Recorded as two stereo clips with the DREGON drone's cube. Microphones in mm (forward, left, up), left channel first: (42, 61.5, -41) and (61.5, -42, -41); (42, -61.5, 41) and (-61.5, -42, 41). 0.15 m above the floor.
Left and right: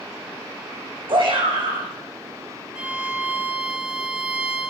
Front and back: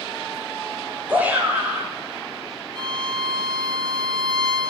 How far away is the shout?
About 6 m.